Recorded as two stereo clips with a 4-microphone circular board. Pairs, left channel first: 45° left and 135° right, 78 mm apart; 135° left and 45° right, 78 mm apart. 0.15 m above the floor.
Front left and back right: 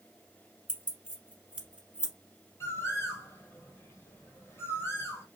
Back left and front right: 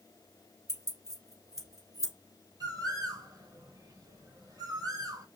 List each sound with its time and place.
0.7 s keys jangling: 65° right, 1.4 m
2.6 s a bird: 10° right, 1.0 m